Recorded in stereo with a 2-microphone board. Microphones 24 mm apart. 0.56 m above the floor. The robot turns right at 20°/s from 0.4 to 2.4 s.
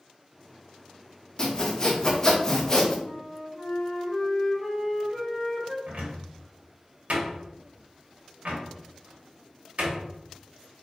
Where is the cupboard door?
75° right (ahead or behind), 1.1 m.